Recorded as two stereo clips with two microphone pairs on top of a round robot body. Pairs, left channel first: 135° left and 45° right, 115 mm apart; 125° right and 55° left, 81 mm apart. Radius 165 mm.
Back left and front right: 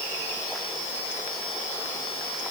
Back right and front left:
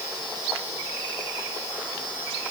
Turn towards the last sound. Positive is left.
No sound to turn to.